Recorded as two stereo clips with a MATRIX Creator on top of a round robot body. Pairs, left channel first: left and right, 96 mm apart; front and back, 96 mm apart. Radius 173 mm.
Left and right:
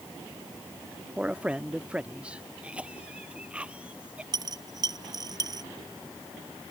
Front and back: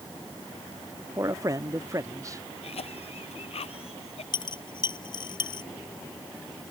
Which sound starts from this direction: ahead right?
A dropped coin, at 4.3 s.